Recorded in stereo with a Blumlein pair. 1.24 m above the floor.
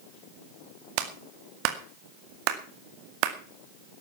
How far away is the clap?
About 2 m.